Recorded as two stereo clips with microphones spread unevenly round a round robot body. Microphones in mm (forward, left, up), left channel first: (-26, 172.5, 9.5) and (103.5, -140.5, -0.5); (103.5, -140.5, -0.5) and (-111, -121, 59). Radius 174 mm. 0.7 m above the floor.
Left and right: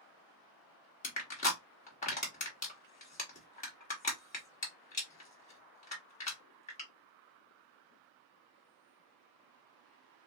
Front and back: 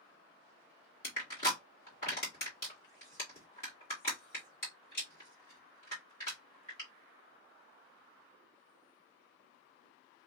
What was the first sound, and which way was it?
Crushing, 45° left.